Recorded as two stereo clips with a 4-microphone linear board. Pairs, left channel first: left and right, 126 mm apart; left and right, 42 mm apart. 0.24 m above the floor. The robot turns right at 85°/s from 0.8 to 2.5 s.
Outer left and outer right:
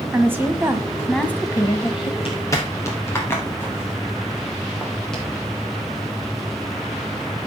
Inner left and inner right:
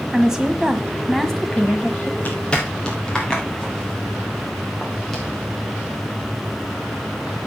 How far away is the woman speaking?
About 1.5 m.